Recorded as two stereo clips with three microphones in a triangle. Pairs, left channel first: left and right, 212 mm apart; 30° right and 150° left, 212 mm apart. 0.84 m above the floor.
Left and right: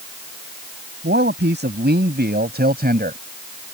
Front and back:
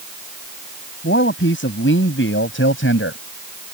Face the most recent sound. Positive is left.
turn(degrees=-45)